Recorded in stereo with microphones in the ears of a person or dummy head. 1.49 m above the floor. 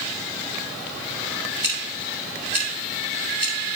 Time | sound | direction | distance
1.6 | scissors | 5° right (ahead or behind) | 3 m